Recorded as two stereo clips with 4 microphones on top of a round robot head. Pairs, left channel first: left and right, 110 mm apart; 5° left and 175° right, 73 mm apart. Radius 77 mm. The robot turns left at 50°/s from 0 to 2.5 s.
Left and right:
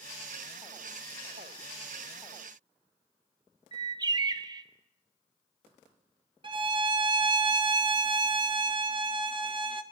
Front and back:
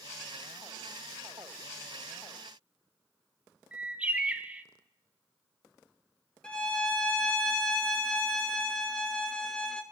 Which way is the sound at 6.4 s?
75° right.